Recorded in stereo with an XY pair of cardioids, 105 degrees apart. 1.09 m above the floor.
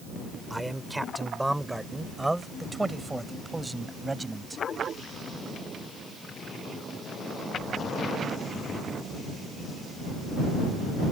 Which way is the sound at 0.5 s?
5° right.